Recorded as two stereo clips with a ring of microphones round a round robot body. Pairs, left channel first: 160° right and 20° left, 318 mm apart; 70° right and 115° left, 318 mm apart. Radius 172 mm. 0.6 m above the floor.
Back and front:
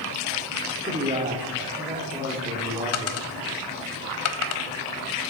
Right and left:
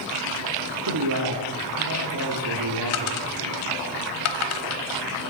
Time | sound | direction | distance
0.9 | a man speaking | 90° left | 1.7 m
2.9 | a dropped coin | 110° right | 0.9 m